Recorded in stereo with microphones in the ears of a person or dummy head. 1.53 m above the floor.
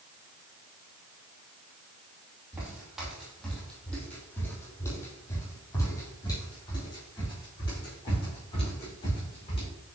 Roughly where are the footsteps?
Centre.